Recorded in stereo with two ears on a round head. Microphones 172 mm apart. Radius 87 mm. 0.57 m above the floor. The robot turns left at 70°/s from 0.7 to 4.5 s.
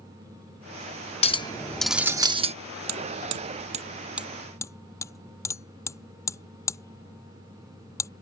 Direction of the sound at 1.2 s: 45° left.